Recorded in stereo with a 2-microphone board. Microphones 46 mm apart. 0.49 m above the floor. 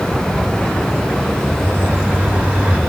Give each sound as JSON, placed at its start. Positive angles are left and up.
{"t": 1.6, "sound": "a bird", "side_deg": -35, "distance_m": 1.4}